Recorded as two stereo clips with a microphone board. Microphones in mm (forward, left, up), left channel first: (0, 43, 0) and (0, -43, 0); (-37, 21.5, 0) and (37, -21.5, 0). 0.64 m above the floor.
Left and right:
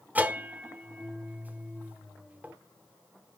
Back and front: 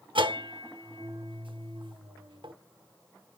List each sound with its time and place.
0.1 s a bell: 20° right, 0.8 m